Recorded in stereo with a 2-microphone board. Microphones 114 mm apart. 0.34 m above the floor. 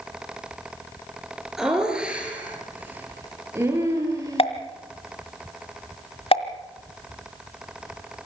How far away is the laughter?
About 6 m.